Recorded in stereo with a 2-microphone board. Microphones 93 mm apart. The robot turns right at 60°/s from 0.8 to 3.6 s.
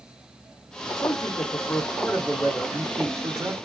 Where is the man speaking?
95° left, 1.0 m; by 3.5 s 110° right, 1.0 m.